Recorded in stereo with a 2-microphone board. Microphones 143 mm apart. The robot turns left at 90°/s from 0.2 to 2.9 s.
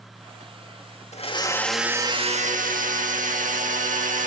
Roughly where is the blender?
Ahead left.